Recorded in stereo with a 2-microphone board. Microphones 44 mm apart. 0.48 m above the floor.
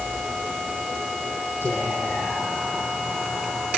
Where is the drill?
I don't hear a drill.